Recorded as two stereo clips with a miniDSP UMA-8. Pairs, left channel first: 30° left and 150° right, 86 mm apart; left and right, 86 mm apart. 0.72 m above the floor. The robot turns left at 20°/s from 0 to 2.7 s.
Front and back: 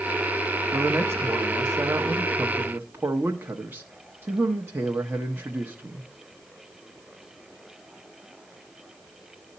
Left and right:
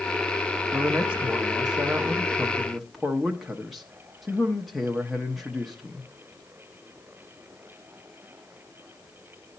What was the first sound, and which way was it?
A man speaking, 140° right.